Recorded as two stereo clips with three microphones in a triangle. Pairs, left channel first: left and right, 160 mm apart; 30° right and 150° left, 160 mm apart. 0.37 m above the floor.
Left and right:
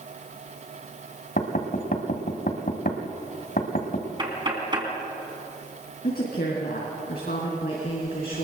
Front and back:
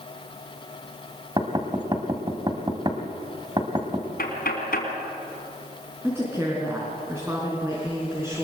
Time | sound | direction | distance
1.4 | knocking | 90° left | 2 m
4.2 | knocking | 30° right | 3.5 m
6.0 | a woman speaking | 75° left | 4 m